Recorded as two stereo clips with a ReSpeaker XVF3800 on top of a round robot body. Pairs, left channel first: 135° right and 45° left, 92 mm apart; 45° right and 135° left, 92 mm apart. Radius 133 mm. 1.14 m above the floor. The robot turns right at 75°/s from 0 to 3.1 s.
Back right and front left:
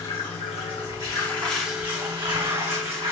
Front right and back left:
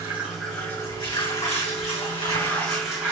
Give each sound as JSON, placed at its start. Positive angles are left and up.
{"t": 0.0, "sound": "running water", "azimuth_deg": -170, "distance_m": 3.0}